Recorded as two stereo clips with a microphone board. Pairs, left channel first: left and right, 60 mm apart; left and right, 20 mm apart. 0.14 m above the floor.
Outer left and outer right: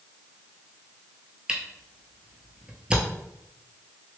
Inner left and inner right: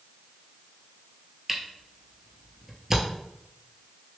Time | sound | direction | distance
1.5 | a camera shutter | 15° right (ahead or behind) | 0.9 m